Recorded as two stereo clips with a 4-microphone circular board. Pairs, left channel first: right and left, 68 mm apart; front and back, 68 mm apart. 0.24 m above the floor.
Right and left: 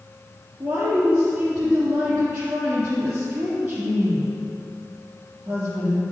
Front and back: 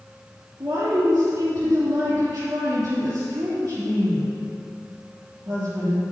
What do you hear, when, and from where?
0.6 s a woman speaking: 130° left, 3 m